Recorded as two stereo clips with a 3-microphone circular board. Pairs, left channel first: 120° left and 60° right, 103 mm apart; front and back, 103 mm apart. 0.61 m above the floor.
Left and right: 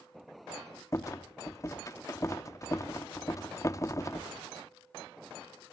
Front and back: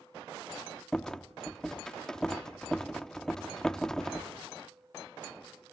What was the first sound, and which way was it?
A rattle, 80° left.